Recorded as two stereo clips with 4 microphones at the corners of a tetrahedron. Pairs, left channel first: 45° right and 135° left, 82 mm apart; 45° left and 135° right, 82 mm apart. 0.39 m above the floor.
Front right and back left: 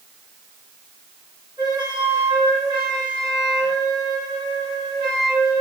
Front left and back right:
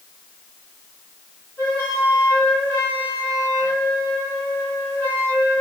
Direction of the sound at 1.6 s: 110° left.